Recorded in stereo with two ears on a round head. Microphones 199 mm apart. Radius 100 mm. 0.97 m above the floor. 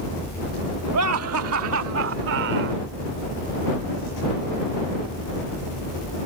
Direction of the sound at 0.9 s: 85° right.